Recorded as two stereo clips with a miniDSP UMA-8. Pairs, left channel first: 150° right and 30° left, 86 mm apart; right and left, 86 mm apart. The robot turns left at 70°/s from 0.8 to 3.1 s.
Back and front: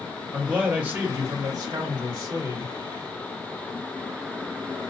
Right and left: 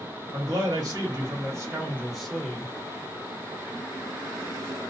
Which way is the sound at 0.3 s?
100° left.